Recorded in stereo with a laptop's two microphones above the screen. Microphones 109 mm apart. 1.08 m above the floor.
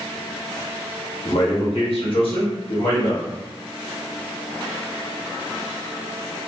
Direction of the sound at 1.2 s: 65° left (ahead or behind).